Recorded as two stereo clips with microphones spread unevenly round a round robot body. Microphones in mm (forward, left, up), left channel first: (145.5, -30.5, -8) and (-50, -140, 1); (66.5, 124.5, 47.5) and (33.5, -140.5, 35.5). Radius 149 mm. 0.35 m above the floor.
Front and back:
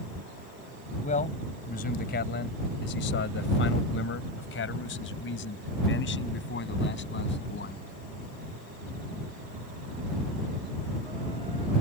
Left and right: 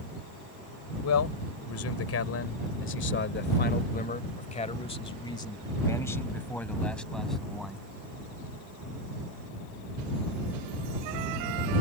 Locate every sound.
1.0 s a man speaking: 90° left; by 7.8 s 10° right